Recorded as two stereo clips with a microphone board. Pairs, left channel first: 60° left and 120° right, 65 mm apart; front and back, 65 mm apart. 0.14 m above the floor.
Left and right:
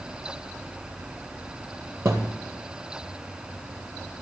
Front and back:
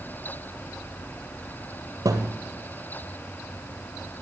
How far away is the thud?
About 2 m.